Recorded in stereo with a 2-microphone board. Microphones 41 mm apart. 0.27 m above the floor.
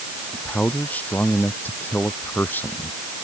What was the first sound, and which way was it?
A man speaking, 40° left (ahead or behind).